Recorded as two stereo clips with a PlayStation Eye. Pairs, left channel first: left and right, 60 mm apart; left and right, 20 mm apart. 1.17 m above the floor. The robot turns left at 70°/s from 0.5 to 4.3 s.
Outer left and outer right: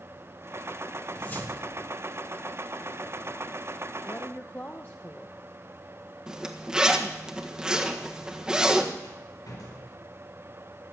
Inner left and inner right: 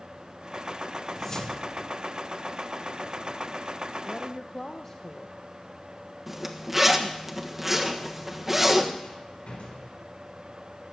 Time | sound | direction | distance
1.1 | a whoosh | 165° left | 1.5 m
4.0 | a woman speaking | 45° left (ahead or behind) | 0.9 m
6.3 | a zipper | 10° right (ahead or behind) | 1.4 m
9.0 | a rattle | 75° left (ahead or behind) | 4.5 m